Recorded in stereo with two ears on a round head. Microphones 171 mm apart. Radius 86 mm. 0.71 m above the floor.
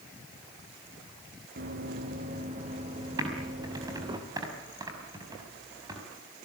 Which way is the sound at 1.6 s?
45° right (ahead or behind).